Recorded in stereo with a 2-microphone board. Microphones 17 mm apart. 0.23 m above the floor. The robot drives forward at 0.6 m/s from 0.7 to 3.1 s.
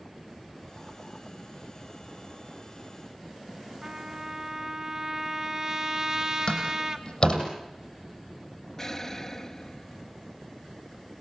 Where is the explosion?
20° left (ahead or behind), 0.7 m.